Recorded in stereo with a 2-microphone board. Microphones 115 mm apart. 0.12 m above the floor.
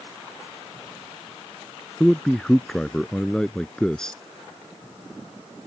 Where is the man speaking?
5° left (ahead or behind).